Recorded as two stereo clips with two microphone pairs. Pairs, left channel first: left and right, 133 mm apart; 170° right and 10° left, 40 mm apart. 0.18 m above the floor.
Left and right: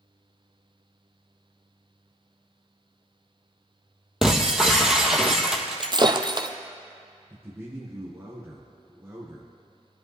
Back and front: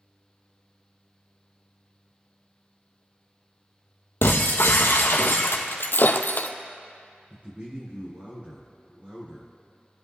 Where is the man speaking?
25° right, 2 m.